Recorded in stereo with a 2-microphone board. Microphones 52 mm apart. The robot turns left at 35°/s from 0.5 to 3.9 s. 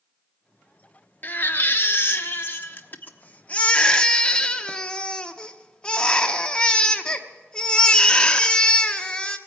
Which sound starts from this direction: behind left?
A baby crying, at 1.2 s.